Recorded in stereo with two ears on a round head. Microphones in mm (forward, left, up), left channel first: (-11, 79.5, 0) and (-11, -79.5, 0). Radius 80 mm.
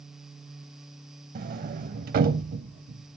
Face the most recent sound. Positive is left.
turn(degrees=-50)  # may be behind; listen again after turning